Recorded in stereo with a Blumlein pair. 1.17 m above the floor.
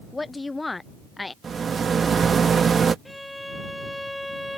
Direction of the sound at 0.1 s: 10° left.